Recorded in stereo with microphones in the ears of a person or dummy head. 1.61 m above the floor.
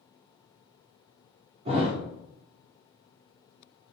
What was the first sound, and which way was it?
A thud, 45° right (ahead or behind).